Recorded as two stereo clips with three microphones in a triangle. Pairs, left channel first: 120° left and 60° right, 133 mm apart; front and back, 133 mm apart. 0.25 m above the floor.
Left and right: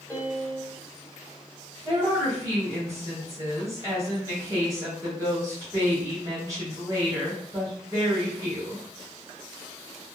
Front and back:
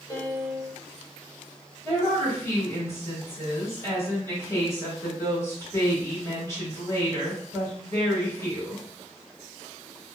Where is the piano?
45° left, 1.5 m.